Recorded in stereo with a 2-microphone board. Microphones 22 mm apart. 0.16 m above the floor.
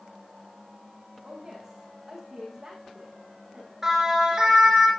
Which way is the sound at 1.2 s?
15° right (ahead or behind).